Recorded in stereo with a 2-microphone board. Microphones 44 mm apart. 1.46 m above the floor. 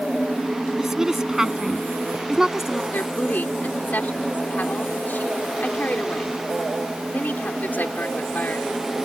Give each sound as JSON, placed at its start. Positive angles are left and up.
{"t": 0.8, "sound": "a woman speaking", "side_deg": -10}
{"t": 2.9, "sound": "a woman speaking", "side_deg": 40}